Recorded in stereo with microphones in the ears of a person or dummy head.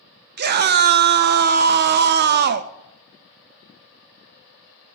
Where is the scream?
60° right (ahead or behind), 0.8 m.